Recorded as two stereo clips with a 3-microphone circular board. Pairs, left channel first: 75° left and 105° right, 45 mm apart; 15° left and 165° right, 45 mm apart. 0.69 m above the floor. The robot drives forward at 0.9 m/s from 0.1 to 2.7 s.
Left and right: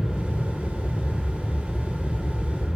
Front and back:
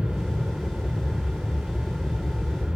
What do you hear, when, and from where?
0.0 s an aircraft: 55° left; by 2.8 s 60° left